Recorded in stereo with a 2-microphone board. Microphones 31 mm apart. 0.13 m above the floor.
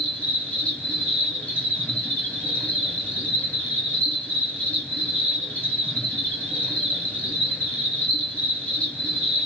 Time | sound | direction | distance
0.0 | an insect | 40° left (ahead or behind) | 1.9 m